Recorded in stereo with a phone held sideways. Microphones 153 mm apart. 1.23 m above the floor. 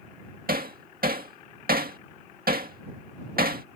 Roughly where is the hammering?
Right.